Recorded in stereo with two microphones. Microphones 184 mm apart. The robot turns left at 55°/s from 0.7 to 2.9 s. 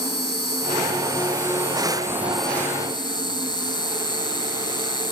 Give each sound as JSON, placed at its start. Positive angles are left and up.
{"t": 0.0, "sound": "an insect", "azimuth_deg": -85}